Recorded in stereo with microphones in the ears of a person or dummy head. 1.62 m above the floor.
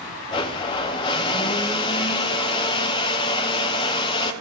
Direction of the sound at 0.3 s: 25° left (ahead or behind).